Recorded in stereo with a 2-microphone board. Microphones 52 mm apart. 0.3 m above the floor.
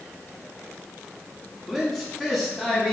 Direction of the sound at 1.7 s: Centre (ahead or behind).